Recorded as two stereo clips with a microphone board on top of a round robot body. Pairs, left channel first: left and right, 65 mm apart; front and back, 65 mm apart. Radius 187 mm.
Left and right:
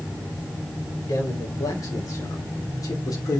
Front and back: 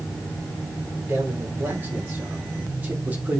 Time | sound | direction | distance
1.1 | a man speaking | 115° left | 4.5 m